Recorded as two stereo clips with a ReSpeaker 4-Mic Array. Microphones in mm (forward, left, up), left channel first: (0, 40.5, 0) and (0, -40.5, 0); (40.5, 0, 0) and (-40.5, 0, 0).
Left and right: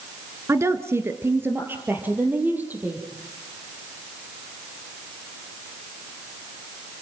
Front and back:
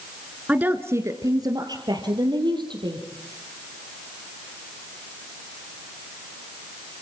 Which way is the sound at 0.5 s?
115° right.